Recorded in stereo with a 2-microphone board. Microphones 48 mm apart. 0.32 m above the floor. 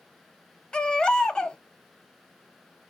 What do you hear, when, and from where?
0.7 s a baby crying: 15° left (ahead or behind), 0.5 m